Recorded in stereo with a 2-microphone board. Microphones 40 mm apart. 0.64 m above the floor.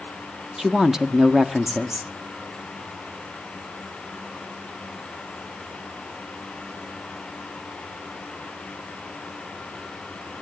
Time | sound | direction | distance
0.6 | a woman speaking | 15° right (ahead or behind) | 0.7 m